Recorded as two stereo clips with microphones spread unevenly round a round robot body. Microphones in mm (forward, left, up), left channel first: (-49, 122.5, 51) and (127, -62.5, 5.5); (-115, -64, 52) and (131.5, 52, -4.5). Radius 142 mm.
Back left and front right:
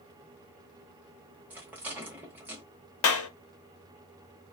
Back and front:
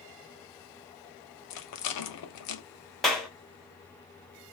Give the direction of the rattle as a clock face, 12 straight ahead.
4 o'clock.